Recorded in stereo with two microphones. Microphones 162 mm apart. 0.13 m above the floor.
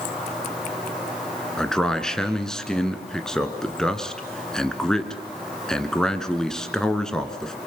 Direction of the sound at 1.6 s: 5° left (ahead or behind).